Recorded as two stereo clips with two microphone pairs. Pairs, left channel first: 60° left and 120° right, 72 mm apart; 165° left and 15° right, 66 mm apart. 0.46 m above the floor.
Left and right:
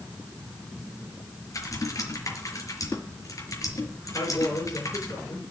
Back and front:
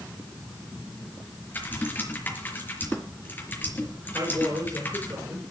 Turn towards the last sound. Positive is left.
turn(degrees=25)